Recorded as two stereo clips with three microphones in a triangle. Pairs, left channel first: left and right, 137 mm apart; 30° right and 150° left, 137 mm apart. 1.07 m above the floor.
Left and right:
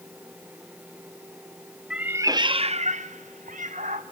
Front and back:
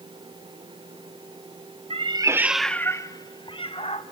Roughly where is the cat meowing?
Behind.